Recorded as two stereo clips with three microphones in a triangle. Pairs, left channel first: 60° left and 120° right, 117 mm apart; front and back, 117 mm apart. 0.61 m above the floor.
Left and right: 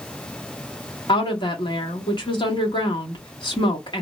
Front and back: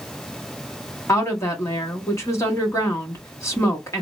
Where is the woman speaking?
50° left, 1.1 m.